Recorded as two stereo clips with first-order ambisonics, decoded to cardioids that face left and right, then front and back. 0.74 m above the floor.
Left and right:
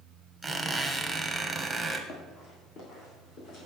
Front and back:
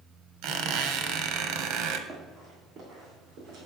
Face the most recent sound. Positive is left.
turn(degrees=130)